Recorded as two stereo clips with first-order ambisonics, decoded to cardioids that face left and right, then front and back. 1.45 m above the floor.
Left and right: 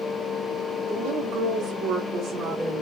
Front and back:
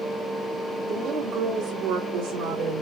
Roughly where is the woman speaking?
Behind right.